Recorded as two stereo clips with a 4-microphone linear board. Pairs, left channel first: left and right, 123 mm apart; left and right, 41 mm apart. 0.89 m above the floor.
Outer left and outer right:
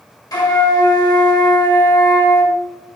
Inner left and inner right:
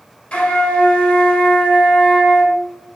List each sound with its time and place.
0.3 s a flute: 35° left (ahead or behind), 1.3 m